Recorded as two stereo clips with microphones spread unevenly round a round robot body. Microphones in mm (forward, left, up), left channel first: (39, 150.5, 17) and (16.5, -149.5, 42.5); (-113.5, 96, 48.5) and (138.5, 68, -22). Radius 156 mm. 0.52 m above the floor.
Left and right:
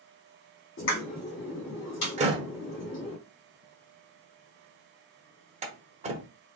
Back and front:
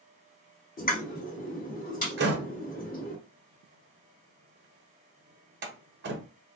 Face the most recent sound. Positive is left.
turn(degrees=-25)